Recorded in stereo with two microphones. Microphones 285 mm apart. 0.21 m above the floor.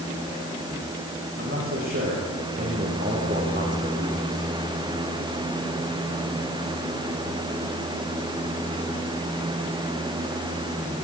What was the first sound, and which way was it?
A man speaking, 50° right (ahead or behind).